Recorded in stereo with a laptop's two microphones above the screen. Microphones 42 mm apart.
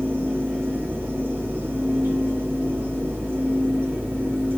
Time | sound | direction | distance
0.0 | a fan | 55° right (ahead or behind) | 2.0 m